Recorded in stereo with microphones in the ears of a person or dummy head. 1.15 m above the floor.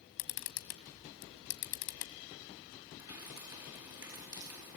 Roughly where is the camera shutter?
Left.